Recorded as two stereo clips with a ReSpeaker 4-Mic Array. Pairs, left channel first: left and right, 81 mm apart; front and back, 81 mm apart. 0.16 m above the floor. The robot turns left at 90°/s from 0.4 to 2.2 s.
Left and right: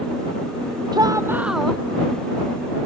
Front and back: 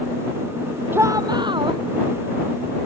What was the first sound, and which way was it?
A shout, 120° right.